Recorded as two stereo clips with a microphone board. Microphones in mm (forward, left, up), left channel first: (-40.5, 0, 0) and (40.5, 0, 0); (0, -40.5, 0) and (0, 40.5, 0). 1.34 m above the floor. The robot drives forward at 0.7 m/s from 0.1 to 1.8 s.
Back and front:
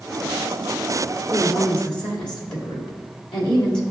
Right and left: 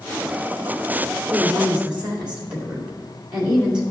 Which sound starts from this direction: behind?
A woman speaking, at 1.3 s.